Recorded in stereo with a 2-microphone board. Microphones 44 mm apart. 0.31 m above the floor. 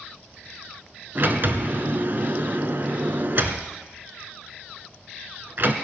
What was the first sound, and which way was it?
A sliding door, 50° right (ahead or behind).